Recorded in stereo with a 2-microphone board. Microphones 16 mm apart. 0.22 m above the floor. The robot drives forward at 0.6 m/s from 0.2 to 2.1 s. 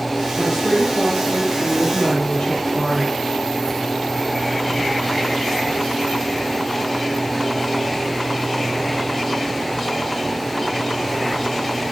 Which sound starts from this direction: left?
A woman speaking, at 0.4 s.